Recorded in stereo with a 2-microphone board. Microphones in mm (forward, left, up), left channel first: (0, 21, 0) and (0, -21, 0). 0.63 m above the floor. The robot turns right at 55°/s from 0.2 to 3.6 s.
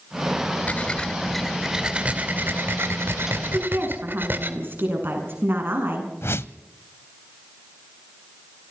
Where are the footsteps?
No footsteps in this recording.